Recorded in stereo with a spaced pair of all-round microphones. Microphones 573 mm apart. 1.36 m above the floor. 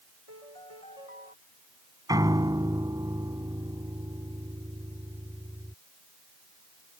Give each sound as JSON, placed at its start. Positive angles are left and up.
{"t": 0.3, "sound": "a piano", "side_deg": 70}
{"t": 2.1, "sound": "a piano", "side_deg": -5}